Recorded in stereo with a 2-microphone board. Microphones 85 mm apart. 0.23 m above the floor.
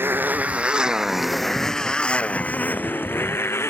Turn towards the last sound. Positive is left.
turn(degrees=30)  # may be behind; listen again after turning